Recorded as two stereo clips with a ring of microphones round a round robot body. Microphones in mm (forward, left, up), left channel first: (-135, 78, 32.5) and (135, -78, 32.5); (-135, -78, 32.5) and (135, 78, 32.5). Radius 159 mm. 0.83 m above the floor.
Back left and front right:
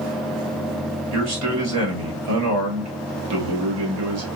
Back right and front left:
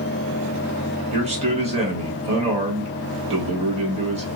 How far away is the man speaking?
About 1.5 m.